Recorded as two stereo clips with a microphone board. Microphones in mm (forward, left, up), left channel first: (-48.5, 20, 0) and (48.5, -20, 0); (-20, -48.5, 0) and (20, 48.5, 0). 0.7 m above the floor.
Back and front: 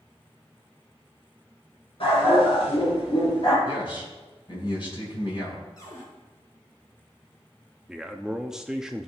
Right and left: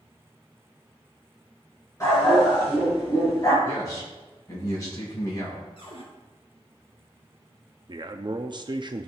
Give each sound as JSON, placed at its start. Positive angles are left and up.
{"t": 2.0, "sound": "a dog barking", "azimuth_deg": -170, "distance_m": 5.0}
{"t": 3.6, "sound": "a man speaking", "azimuth_deg": -170, "distance_m": 5.5}
{"t": 5.8, "sound": "a cupboard door", "azimuth_deg": -145, "distance_m": 3.5}
{"t": 7.9, "sound": "a man speaking", "azimuth_deg": 60, "distance_m": 0.7}